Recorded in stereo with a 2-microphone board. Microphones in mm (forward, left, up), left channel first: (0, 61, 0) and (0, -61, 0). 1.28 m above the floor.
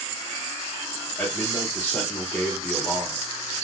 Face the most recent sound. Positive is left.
turn(degrees=15)  # may be behind; listen again after turning